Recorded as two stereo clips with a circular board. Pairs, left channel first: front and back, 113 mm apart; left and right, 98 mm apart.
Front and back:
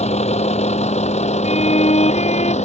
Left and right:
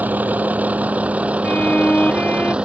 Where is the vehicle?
15° right; by 2.6 s 10° right.